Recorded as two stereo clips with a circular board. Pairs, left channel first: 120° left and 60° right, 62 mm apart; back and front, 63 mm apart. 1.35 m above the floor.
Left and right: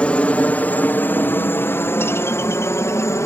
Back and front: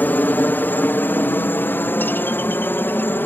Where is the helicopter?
170° left; by 3.3 s 135° left.